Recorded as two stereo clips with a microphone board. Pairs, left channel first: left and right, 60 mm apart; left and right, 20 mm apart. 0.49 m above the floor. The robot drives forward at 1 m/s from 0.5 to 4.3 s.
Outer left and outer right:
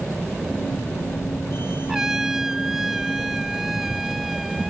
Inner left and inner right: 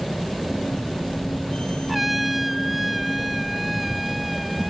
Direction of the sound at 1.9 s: 10° right (ahead or behind).